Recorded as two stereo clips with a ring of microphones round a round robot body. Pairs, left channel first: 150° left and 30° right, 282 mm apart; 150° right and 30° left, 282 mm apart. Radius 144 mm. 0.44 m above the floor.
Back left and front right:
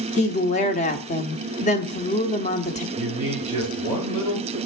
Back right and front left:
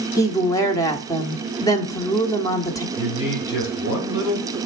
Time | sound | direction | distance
0.2 | a woman speaking | 150° left | 0.9 m
3.0 | a man speaking | 140° right | 3 m